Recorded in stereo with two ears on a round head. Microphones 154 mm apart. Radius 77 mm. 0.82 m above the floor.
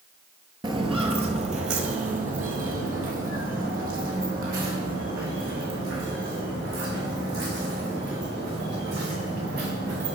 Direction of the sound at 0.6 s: 25° right (ahead or behind).